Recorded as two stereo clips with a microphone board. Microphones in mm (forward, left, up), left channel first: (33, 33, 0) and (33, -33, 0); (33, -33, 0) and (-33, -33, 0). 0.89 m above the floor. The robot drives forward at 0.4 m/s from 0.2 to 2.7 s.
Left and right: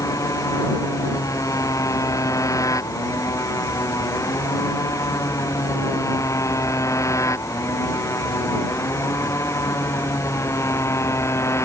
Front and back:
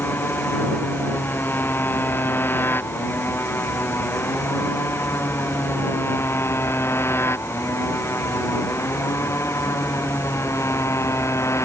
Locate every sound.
0.0 s a motorcycle: 55° left; by 11.7 s 45° left